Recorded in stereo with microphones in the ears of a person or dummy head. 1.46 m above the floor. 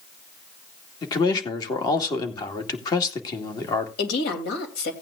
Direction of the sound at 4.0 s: 65° left (ahead or behind).